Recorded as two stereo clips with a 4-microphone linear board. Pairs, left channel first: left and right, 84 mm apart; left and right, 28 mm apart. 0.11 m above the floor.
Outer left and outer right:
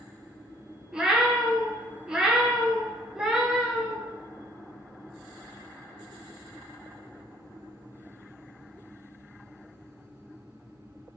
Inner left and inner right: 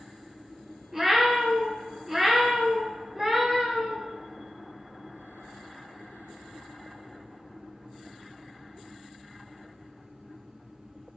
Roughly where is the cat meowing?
Centre.